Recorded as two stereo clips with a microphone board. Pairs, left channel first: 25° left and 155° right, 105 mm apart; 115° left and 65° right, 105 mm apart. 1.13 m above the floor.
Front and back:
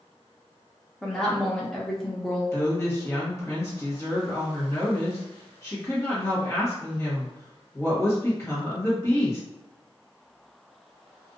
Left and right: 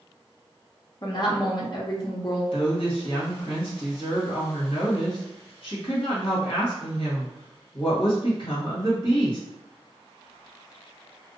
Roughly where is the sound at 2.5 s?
Left.